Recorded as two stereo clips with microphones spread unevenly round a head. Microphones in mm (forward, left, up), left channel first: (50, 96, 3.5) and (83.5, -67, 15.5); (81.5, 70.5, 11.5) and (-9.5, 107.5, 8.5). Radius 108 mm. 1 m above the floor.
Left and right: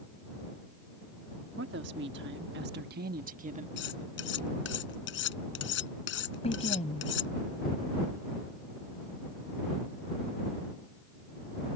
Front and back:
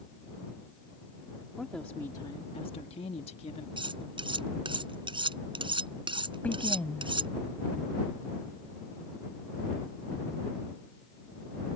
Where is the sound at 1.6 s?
110° right; by 3.7 s 35° right.